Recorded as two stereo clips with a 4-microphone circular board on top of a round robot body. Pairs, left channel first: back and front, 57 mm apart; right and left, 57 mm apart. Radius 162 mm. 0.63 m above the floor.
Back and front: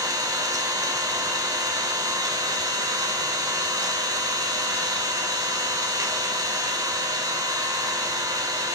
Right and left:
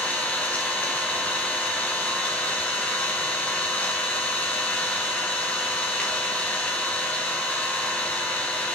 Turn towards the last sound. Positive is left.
turn(degrees=-20)